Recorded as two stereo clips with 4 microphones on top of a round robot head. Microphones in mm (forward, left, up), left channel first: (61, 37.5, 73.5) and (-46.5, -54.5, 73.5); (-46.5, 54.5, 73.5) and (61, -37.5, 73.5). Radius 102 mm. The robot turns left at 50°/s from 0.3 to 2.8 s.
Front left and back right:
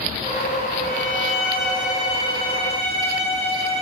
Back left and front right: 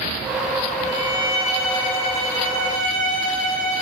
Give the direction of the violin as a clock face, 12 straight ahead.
10 o'clock.